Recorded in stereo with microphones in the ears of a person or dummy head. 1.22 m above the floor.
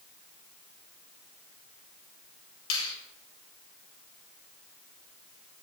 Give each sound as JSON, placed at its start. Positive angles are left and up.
{"t": 2.7, "sound": "a finger snap", "side_deg": 75, "distance_m": 1.7}